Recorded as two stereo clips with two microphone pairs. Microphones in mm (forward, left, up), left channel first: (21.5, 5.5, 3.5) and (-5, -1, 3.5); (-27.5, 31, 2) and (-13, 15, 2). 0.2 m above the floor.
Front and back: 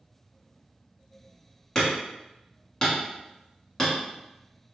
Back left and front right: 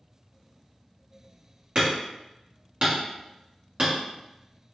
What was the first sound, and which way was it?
Hammering, 45° right.